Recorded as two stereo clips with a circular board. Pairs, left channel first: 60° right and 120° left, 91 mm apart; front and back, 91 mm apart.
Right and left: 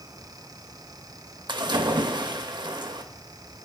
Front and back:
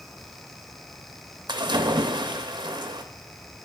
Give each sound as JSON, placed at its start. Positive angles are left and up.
{"t": 1.5, "sound": "a splash", "azimuth_deg": 150, "distance_m": 0.6}